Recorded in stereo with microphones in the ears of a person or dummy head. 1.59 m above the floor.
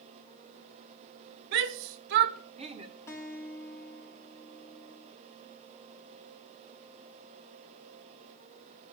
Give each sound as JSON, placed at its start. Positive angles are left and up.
{"t": 1.5, "sound": "a shout", "side_deg": -55, "distance_m": 1.0}
{"t": 3.1, "sound": "a guitar", "side_deg": 15, "distance_m": 2.5}